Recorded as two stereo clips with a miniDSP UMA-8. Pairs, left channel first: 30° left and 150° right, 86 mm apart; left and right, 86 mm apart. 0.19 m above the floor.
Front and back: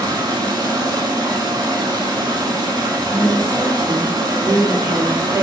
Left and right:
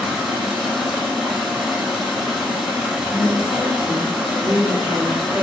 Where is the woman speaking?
95° right, 1.5 m.